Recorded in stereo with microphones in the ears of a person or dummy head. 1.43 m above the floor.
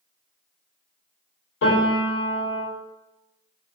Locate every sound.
1.6 s a piano: 60° left (ahead or behind), 2.0 m